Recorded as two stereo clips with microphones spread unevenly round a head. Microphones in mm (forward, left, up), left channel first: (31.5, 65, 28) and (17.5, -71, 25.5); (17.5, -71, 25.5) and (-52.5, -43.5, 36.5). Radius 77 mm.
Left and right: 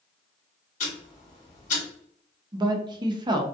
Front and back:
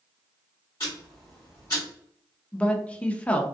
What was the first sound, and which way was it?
Ticking, 55° left.